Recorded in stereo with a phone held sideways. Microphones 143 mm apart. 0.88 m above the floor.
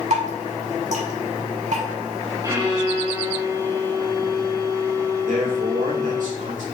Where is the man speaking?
70° right (ahead or behind), 2.5 m.